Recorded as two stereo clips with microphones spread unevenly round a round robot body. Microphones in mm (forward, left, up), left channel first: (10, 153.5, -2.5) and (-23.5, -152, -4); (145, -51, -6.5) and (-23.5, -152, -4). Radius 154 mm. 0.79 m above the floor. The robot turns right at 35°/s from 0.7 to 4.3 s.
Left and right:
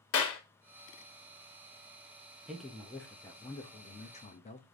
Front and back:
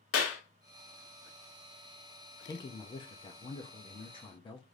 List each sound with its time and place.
0.1 s a clap: 35° left, 1.1 m
2.5 s a man speaking: 15° right, 0.5 m; by 4.6 s 50° left, 0.5 m